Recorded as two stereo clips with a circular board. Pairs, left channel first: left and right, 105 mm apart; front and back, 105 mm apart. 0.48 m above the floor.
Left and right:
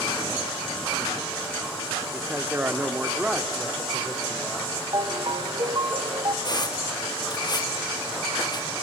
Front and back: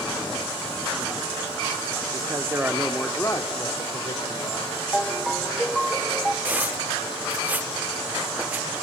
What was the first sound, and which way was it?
A man speaking, 155° right.